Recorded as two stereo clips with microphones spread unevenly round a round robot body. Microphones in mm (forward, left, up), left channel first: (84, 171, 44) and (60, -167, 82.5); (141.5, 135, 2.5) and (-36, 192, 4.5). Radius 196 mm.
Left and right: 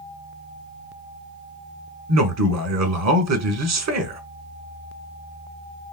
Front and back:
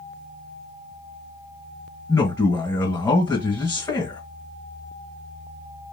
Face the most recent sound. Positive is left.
turn(degrees=-85)